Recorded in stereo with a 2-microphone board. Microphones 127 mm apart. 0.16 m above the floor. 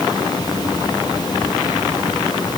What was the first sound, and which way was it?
Only background noise.